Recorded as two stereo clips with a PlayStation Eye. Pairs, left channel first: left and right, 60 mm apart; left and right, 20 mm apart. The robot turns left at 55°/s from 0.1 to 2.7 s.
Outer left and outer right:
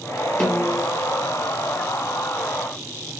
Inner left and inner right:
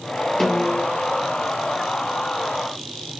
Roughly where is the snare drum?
Centre.